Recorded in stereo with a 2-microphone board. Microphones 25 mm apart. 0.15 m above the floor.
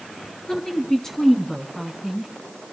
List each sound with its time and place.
0.5 s a woman speaking: 25° left (ahead or behind), 1.9 m; by 2.3 s centre (ahead or behind), 2 m